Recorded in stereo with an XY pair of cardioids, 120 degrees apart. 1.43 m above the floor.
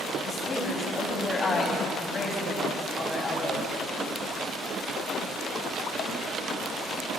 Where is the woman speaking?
30° left, 7.5 m.